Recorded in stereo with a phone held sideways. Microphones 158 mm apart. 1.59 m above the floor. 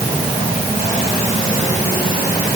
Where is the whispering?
No whispering in this recording.